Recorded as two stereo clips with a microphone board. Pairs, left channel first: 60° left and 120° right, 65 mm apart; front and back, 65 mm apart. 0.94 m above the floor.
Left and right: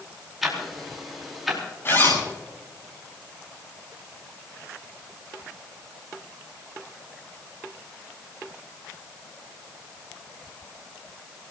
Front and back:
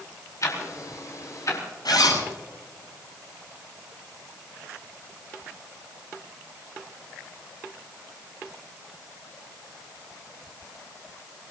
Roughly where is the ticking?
Ahead right.